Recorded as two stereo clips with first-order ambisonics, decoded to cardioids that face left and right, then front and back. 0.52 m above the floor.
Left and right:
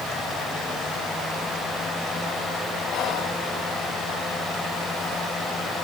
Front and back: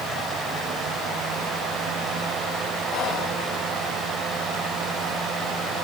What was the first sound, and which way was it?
Whispering, 40° left.